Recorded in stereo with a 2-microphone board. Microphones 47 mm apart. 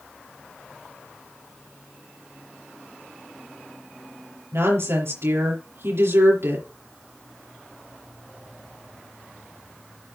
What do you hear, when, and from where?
4.5 s a woman speaking: 70° right (ahead or behind), 5.5 m